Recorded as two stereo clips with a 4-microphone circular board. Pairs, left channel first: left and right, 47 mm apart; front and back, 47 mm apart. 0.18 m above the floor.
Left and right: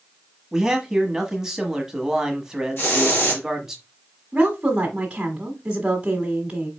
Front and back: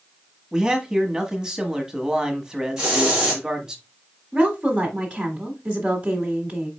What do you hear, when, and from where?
0.5 s a man speaking: 145° right, 1.2 m
2.8 s a hiss: 110° left, 2.5 m
4.3 s a woman speaking: 140° right, 1.3 m